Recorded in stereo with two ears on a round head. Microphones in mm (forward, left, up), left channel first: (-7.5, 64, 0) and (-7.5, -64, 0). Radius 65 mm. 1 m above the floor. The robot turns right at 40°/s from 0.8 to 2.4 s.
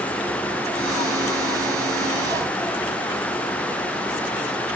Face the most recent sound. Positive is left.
No sound to turn to.